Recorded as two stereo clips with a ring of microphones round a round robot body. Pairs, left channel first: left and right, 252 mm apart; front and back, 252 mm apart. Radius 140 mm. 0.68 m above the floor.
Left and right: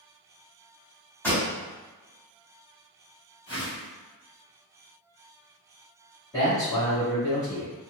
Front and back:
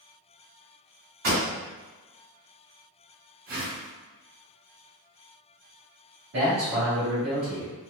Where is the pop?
170° left, 1.8 m.